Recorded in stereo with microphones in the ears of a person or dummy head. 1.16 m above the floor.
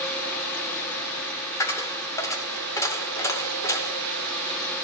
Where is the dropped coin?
15° left (ahead or behind), 0.6 m.